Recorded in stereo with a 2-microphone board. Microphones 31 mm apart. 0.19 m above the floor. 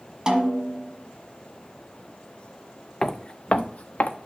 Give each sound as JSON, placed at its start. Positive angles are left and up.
{"t": 0.3, "sound": "a snare drum", "side_deg": -25, "distance_m": 1.2}
{"t": 3.0, "sound": "footsteps", "side_deg": 20, "distance_m": 0.6}